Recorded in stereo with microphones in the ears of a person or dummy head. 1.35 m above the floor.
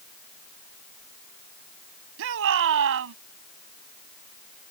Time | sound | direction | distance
2.2 | a shout | 75° right (ahead or behind) | ?